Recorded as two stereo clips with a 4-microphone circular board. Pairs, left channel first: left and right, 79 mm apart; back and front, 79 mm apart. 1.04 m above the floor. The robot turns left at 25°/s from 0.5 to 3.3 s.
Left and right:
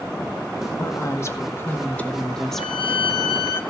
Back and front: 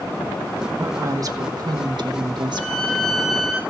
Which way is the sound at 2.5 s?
105° left.